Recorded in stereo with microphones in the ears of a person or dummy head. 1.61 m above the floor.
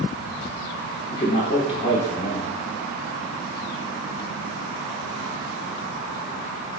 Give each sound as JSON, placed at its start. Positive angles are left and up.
{"t": 1.1, "sound": "a man speaking", "side_deg": 25, "distance_m": 0.6}